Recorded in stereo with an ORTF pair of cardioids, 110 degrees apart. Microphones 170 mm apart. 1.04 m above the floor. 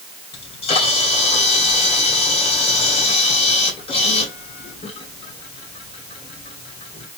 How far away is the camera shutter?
About 2.5 m.